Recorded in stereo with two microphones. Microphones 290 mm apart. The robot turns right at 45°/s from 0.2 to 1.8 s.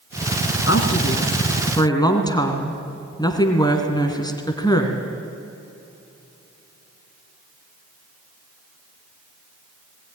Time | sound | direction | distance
0.7 | a woman speaking | 115° left | 2 m